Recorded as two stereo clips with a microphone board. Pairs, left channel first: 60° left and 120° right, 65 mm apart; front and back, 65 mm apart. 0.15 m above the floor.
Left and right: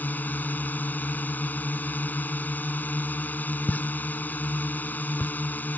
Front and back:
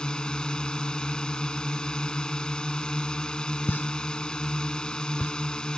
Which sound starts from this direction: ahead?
A pop, at 3.7 s.